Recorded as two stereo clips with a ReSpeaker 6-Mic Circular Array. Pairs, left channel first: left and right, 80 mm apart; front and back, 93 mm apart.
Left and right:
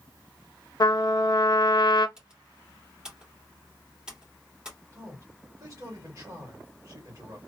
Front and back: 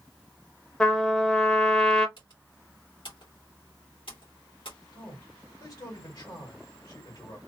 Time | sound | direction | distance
0.8 | a trumpet | 80° left | 0.7 m
2.2 | typing on a keyboard | 15° right | 1.9 m
4.9 | a man speaking | 35° right | 2 m